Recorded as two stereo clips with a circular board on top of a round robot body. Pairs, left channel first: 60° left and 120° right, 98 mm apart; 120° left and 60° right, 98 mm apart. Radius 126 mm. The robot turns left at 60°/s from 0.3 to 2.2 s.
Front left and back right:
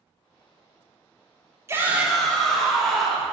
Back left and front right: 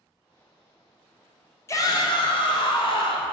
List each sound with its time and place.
1.7 s a shout: straight behind, 0.8 m; by 3.3 s 150° left, 0.8 m